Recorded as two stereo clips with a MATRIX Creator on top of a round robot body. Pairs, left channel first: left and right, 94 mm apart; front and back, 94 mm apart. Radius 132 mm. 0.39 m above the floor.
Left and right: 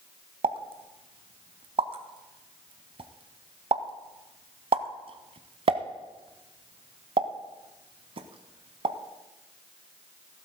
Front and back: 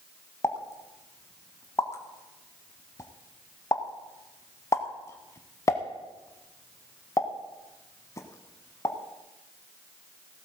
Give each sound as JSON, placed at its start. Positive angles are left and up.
{"t": 0.4, "sound": "a pop", "azimuth_deg": -60, "distance_m": 0.8}